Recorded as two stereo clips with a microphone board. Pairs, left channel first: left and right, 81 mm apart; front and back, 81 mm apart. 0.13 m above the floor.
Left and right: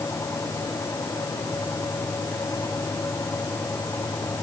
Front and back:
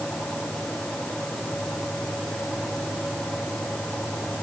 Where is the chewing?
No chewing in this recording.